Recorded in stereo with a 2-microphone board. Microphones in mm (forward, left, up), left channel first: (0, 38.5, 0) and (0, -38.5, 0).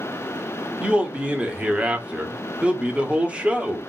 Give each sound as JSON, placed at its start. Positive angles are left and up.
{"t": 0.8, "sound": "a man speaking", "side_deg": -15, "distance_m": 0.8}